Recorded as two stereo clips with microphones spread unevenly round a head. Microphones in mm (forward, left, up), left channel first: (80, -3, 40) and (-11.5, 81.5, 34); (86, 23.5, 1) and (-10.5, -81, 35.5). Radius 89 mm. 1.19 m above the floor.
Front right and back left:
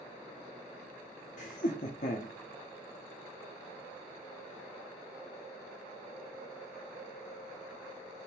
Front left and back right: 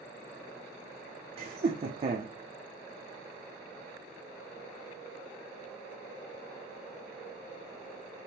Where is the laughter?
80° right, 0.6 m.